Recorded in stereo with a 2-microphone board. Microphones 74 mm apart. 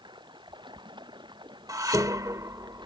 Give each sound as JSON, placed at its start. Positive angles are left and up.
{"t": 0.0, "sound": "running water", "side_deg": -75}
{"t": 1.7, "sound": "dishes clattering", "side_deg": -50}